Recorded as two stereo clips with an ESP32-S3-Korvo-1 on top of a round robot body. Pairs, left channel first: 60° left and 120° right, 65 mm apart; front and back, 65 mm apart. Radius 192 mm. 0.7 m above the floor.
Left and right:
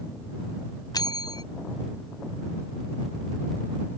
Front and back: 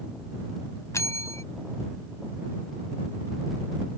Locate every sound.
0.9 s a bell: 45° left